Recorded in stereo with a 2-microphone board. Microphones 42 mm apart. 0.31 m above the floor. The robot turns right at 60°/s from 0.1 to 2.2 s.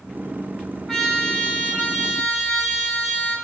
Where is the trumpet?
5° left, 2.5 m; by 3.4 s 85° left, 2.5 m.